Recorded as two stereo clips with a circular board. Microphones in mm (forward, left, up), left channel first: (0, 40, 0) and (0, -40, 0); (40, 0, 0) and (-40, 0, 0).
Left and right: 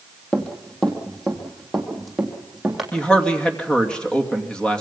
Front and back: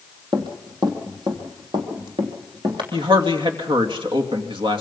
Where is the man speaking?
170° left, 2.5 m.